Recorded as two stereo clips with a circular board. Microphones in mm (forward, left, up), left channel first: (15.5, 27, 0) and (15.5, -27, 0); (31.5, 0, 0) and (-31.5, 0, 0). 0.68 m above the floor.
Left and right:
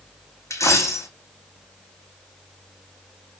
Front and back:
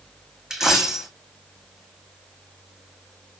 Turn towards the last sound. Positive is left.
turn(degrees=100)